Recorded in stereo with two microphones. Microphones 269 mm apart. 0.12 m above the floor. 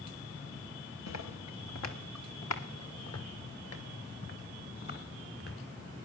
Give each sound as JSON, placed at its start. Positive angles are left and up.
{"t": 1.1, "sound": "footsteps", "side_deg": 80, "distance_m": 2.0}